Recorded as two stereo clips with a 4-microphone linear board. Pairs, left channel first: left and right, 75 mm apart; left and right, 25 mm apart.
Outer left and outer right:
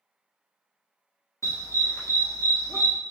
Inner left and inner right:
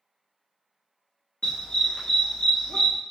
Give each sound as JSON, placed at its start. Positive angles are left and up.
{"t": 1.4, "sound": "a dog barking", "side_deg": 45, "distance_m": 1.3}